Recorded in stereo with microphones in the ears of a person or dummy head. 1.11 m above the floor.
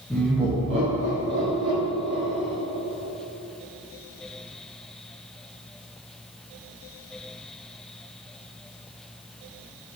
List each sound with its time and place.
0.1 s laughter: 10° left (ahead or behind), 1.0 m; by 2.5 s 75° right (ahead or behind), 3 m